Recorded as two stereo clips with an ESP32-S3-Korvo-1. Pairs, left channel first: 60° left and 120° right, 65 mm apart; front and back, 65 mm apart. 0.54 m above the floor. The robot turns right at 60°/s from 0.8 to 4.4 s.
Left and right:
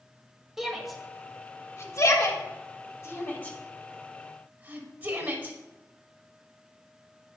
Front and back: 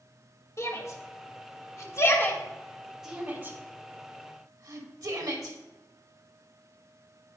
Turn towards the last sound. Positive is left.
turn(degrees=180)